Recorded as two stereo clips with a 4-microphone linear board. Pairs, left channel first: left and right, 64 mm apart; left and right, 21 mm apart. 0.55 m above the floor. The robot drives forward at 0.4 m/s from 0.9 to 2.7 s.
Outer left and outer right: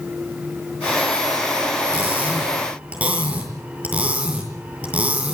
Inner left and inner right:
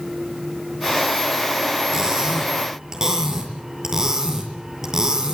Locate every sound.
1.9 s cutlery clinking: 25° right (ahead or behind), 7.5 m